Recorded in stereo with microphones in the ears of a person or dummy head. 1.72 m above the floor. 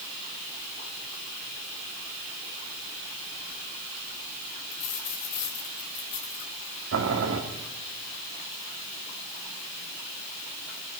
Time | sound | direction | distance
4.7 | a dropped coin | 50° left (ahead or behind) | 4 m
6.9 | boiling | 75° right (ahead or behind) | 3 m